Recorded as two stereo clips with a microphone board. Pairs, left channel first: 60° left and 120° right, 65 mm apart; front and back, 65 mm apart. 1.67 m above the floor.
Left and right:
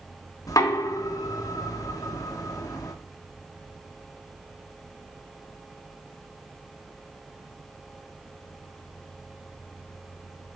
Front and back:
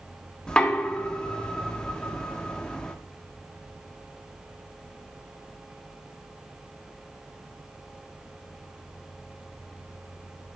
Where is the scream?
I don't hear a scream.